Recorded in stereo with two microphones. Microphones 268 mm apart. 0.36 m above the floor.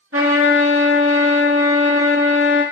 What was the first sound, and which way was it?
A trumpet, 55° right (ahead or behind).